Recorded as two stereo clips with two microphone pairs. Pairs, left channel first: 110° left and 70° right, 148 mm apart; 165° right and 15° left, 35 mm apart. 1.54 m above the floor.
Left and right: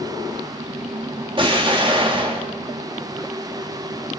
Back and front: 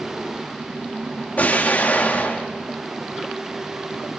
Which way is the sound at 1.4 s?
120° right.